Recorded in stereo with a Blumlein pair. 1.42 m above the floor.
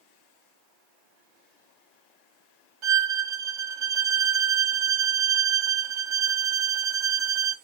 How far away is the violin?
About 0.7 m.